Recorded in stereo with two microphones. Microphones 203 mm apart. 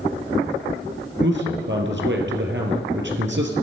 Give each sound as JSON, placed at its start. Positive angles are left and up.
{"t": 1.2, "sound": "a man speaking", "side_deg": -65, "distance_m": 3.0}